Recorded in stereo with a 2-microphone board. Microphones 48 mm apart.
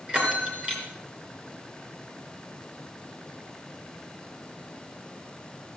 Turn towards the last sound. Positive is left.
turn(degrees=-25)  # may be behind; listen again after turning